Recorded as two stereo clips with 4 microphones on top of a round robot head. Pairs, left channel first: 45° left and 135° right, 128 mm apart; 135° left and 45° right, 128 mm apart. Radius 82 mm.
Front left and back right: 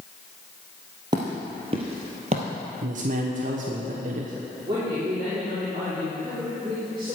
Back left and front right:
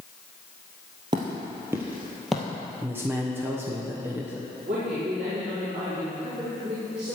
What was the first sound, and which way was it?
Footsteps, 85° right.